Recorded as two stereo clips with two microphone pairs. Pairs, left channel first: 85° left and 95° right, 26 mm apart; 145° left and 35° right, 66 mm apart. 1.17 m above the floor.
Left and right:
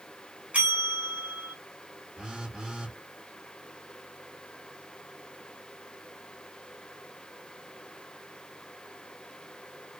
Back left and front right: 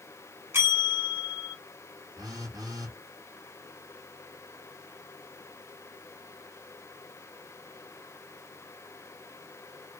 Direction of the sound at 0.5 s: 85° right.